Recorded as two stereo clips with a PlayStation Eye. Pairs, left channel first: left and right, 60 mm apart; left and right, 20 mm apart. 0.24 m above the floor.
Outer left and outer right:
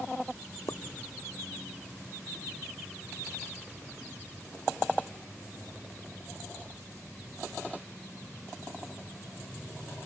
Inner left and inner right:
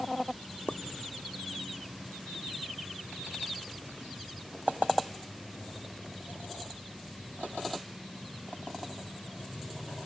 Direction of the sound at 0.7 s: 65° left (ahead or behind).